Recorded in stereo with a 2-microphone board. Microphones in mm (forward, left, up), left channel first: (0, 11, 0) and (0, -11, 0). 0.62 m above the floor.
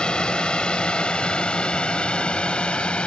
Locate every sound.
0.0 s a drone: 45° left (ahead or behind); by 3.1 s 60° left (ahead or behind)